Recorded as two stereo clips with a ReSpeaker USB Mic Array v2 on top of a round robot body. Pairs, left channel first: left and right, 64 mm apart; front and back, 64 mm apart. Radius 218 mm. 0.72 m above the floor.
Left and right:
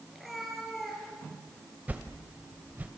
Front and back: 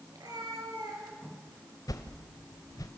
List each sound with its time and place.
0.1 s a cat meowing: straight behind, 5.5 m; by 1.6 s 175° left, 7 m
1.9 s a whoosh: 25° right, 1.0 m